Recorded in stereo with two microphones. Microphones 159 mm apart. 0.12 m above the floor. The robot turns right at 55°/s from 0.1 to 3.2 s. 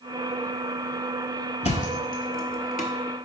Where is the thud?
40° left (ahead or behind), 0.7 m; by 2.9 s 55° left (ahead or behind), 0.7 m.